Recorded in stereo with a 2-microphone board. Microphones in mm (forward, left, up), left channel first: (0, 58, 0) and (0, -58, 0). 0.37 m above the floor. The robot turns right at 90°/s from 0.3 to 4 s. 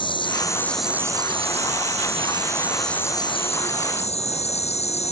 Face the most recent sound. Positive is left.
turn(degrees=110)